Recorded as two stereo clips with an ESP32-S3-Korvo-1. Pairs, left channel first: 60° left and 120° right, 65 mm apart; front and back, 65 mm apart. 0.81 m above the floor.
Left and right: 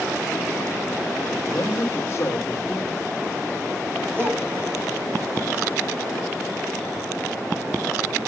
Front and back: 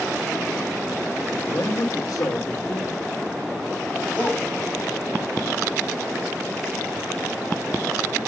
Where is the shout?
65° right, 4 m.